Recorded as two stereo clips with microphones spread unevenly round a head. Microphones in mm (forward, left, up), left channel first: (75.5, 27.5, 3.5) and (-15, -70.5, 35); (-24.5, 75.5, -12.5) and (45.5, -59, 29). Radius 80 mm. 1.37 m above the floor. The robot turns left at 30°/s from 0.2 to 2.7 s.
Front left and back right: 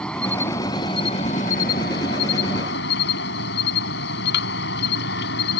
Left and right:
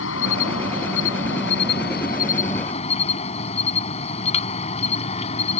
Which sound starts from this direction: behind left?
An insect, at 0.0 s.